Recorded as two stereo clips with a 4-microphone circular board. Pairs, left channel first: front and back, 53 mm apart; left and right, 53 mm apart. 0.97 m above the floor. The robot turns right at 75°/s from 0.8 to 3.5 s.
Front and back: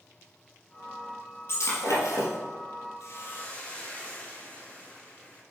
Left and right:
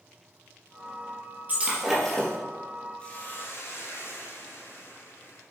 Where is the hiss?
25° left, 1.8 m; by 5.4 s 60° left, 1.8 m.